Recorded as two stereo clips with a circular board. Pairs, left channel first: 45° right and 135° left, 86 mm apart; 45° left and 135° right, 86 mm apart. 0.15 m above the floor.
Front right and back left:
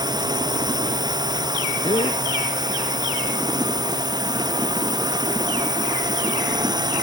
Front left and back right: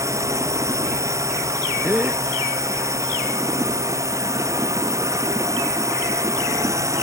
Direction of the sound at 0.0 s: 175° left.